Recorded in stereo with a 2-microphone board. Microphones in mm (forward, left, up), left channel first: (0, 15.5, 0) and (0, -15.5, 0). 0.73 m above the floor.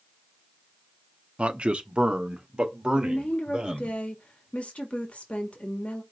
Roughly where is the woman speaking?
Left.